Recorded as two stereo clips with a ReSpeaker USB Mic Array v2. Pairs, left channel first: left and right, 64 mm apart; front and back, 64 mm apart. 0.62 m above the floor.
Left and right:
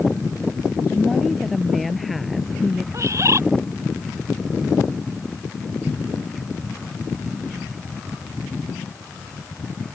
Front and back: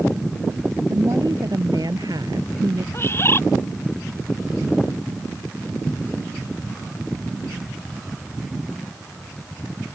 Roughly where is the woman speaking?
Behind.